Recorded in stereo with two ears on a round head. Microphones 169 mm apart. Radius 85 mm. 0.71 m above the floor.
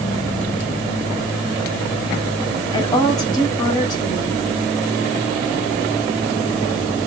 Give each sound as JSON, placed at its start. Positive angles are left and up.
{"t": 2.7, "sound": "a woman speaking", "side_deg": 20, "distance_m": 1.8}